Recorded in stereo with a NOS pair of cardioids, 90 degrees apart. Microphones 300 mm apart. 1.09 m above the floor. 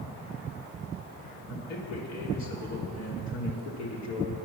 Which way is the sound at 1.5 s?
65° left.